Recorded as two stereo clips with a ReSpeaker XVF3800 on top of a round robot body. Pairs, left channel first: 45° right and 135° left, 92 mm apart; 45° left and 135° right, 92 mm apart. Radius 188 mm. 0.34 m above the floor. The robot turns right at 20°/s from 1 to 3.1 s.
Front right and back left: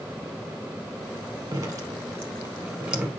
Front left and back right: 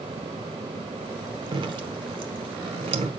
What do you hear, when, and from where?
1.5 s dripping: 175° right, 1.6 m; by 3.1 s 140° right, 1.6 m